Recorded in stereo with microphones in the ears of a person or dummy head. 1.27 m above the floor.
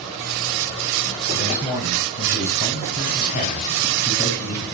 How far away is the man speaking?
About 7 m.